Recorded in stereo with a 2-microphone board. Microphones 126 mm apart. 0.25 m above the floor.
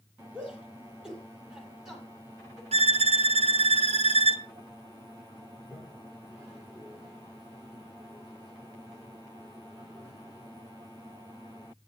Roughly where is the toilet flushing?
Centre.